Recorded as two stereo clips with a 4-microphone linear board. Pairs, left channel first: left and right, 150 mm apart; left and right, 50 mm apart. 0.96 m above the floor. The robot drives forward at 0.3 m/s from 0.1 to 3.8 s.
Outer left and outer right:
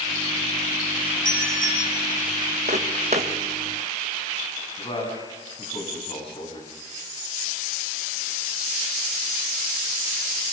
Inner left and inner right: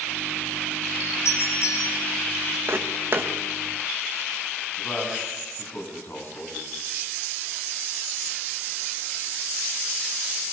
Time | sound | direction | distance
1.2 | a doorbell | 60° left (ahead or behind) | 8.5 m
2.7 | footsteps | 50° right (ahead or behind) | 2.5 m
4.8 | a man speaking | 35° left (ahead or behind) | 8 m